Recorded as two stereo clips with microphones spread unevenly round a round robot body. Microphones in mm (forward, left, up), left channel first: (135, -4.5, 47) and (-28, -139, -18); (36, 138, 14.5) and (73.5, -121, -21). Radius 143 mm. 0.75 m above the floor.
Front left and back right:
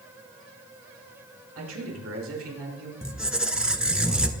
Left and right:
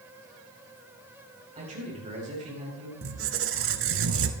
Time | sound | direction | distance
1.6 | a man speaking | 150° right | 4 m
3.0 | a squeak | 45° right | 1.1 m